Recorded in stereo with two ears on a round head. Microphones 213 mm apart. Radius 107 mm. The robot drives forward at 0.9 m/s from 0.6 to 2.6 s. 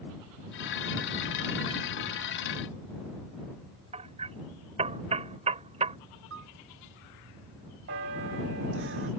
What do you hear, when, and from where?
3.9 s hammering: 25° right (ahead or behind)
6.3 s a piano: 55° right (ahead or behind)
7.9 s a bell: 55° right (ahead or behind)